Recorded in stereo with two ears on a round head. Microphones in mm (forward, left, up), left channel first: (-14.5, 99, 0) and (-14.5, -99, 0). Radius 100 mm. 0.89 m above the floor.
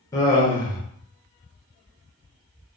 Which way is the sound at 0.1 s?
15° left (ahead or behind).